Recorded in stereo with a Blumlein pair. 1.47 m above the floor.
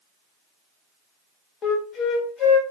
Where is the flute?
25° left, 0.8 m.